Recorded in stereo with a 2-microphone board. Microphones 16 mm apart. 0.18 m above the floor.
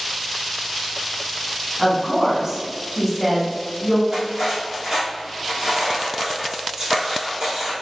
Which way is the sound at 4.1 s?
45° right (ahead or behind).